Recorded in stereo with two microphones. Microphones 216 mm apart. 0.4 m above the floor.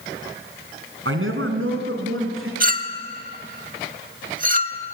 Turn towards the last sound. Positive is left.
turn(degrees=-40)  # may be behind; listen again after turning